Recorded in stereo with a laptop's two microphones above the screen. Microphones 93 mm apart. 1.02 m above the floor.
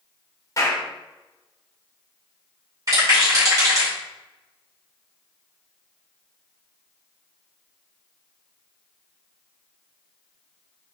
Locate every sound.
0.6 s a clap: 35° left (ahead or behind), 2.5 m
2.9 s a rattle: 40° right (ahead or behind), 2.5 m